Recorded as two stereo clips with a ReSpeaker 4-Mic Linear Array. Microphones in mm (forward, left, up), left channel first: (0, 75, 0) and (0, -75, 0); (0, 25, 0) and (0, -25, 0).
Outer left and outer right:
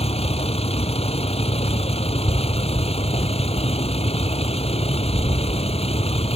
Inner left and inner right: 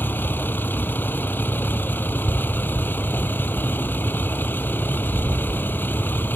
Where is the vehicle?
45° left (ahead or behind).